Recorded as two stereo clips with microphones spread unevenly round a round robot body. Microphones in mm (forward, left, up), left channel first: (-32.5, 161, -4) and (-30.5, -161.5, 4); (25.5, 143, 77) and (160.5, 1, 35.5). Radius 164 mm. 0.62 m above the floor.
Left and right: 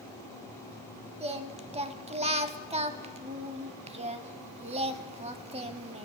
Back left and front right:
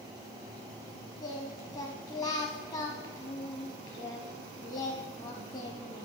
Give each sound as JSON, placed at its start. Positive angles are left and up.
{"t": 1.2, "sound": "singing", "azimuth_deg": -160, "distance_m": 0.7}